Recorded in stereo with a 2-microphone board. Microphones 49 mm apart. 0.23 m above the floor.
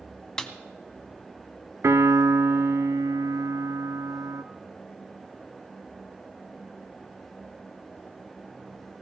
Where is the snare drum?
15° left (ahead or behind), 1.0 m.